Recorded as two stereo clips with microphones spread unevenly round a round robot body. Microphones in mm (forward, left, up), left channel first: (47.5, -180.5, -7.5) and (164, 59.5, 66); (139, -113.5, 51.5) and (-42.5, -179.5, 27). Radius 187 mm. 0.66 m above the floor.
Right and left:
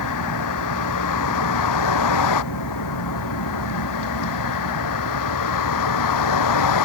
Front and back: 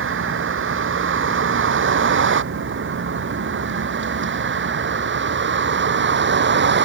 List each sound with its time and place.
0.0 s a vehicle: 145° right; by 6.9 s 135° right